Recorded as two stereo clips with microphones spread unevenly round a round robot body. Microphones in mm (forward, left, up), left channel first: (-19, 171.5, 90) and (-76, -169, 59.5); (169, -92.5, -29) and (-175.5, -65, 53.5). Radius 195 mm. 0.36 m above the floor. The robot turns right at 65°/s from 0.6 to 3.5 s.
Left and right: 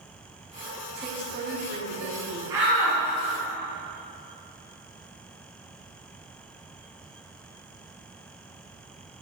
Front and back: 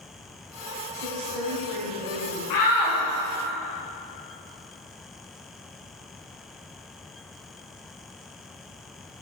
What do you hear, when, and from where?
0.9 s a woman speaking: 160° left, 3 m; by 2.4 s 105° right, 3 m
2.5 s a shout: 20° right, 3 m; by 3.0 s 10° left, 3 m